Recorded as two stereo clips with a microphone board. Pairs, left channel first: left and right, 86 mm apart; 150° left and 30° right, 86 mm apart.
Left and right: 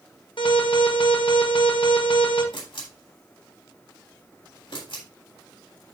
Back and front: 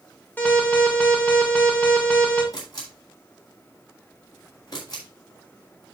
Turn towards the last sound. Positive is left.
turn(degrees=105)